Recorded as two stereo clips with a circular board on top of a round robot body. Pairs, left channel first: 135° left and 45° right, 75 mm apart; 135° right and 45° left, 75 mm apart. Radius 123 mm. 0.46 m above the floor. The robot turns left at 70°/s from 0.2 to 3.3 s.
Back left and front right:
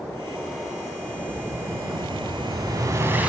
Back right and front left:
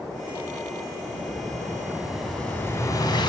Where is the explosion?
35° left, 5 m; by 3.3 s 120° right, 5 m.